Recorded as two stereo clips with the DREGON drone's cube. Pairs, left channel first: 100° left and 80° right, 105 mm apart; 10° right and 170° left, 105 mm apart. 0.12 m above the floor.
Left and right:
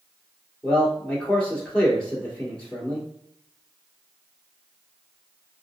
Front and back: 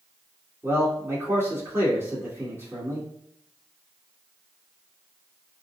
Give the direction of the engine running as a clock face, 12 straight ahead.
I don't hear an engine running.